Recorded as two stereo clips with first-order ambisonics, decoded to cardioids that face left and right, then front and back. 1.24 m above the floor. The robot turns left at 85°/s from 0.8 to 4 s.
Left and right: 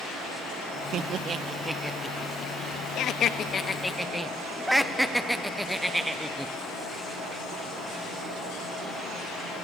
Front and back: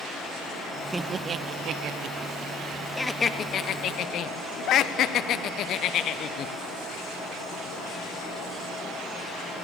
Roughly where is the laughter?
Right.